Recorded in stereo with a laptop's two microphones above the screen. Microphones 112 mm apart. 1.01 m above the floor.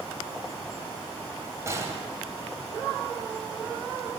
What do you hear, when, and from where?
1.7 s a gunshot: 30° right (ahead or behind), 2.5 m